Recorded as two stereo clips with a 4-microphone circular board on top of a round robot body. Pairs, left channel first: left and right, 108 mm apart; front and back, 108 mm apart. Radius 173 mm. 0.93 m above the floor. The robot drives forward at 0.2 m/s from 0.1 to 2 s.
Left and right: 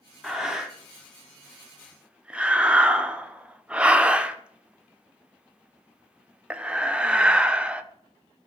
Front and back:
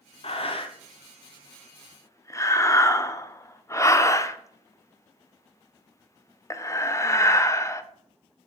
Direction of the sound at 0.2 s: 5° right.